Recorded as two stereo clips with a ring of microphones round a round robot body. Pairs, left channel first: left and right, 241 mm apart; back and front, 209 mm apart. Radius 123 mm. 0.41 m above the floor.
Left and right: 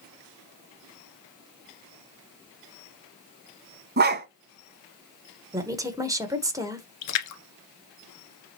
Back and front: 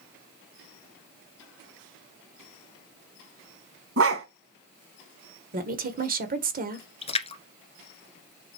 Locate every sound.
4.0 s a dog barking: 40° right, 1.4 m
5.5 s a woman speaking: 20° right, 1.7 m
7.0 s a splash: 115° left, 1.6 m